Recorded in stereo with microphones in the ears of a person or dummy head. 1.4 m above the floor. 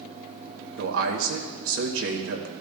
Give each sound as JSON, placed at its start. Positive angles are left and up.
{"t": 0.8, "sound": "a man speaking", "side_deg": -80, "distance_m": 2.0}